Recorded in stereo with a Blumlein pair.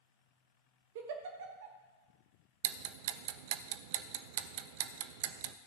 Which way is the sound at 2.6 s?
50° right.